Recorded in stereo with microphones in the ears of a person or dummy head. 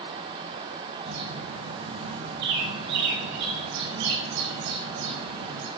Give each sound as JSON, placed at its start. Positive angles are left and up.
{"t": 1.1, "sound": "a bird", "side_deg": -65, "distance_m": 5.5}